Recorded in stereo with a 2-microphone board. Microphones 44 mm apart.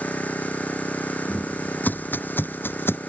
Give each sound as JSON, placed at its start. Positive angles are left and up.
{"t": 0.0, "sound": "an engine running", "side_deg": 35}
{"t": 1.3, "sound": "footsteps", "side_deg": 35}